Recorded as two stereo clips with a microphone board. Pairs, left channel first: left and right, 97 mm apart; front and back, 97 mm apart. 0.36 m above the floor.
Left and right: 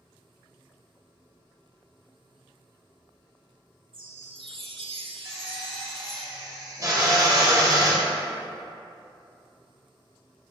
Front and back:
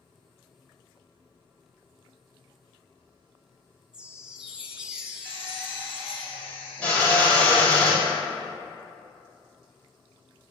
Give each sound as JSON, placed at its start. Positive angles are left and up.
{"t": 3.9, "sound": "a chime", "azimuth_deg": -100, "distance_m": 0.7}
{"t": 5.2, "sound": "a drill", "azimuth_deg": -70, "distance_m": 1.8}